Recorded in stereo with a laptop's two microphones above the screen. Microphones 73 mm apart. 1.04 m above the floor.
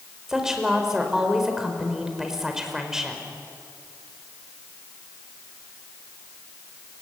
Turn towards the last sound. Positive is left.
turn(degrees=-5)  # may be behind; listen again after turning